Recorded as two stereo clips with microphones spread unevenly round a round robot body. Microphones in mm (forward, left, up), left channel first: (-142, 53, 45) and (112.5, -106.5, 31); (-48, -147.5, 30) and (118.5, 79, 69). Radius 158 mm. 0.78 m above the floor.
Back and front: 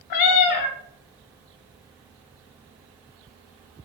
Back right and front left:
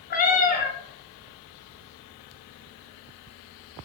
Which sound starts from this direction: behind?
A cat meowing, at 0.1 s.